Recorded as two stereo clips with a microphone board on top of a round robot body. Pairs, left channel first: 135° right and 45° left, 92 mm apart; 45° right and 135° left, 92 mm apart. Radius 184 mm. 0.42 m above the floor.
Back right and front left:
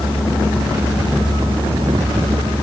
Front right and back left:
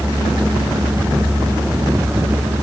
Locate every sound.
Only background noise.